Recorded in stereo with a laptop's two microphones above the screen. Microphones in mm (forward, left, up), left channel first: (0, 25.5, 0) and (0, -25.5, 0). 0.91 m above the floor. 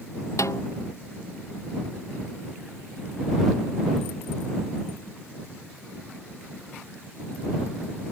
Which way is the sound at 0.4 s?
80° left.